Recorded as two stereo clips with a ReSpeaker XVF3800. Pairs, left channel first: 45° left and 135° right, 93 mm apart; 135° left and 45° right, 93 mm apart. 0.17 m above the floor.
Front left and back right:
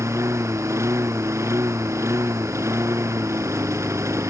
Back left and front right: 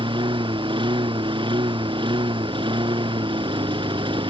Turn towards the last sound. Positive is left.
turn(degrees=-75)